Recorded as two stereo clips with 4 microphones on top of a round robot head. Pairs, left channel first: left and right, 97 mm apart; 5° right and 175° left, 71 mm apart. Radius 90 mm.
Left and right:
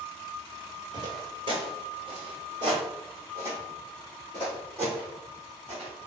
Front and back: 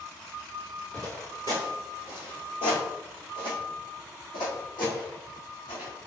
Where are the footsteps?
90° right, 0.9 m; by 5.9 s 25° right, 3.5 m.